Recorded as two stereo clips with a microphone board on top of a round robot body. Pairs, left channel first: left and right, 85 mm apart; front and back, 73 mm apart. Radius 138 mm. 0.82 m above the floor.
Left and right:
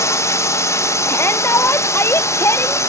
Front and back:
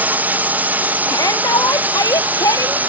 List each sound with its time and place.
0.0 s a drone: 125° left
1.1 s a shout: 30° left